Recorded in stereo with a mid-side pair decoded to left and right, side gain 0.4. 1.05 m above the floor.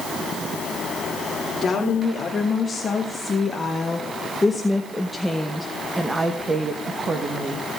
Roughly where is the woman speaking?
Ahead left.